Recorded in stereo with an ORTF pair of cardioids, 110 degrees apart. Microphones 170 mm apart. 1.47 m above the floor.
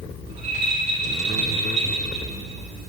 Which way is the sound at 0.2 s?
40° right.